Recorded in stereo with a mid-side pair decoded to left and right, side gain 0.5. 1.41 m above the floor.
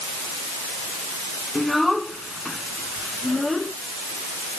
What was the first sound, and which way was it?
A child speaking, 5° left.